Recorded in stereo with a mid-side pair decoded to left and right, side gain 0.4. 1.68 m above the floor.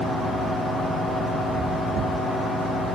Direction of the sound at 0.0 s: 65° left.